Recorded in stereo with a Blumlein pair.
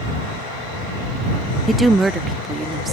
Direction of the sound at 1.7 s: 5° right.